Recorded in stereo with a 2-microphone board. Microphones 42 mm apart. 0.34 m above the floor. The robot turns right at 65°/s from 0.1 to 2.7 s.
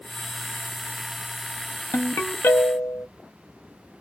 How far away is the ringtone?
About 0.7 m.